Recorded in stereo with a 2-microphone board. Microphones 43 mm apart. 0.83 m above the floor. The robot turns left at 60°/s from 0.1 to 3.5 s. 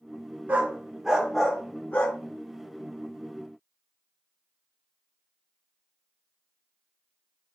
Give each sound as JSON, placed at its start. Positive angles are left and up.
{"t": 0.5, "sound": "a dog barking", "side_deg": -45, "distance_m": 0.8}